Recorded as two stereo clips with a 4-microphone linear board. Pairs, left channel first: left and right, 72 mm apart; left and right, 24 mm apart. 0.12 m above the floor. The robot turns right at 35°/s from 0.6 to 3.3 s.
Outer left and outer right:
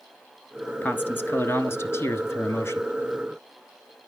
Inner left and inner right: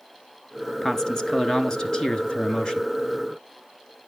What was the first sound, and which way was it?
A man speaking, 40° left.